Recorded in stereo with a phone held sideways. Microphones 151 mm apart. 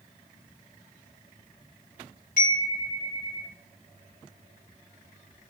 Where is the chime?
70° left (ahead or behind), 5 m.